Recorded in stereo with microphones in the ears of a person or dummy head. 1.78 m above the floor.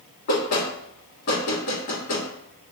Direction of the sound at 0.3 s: 55° left (ahead or behind).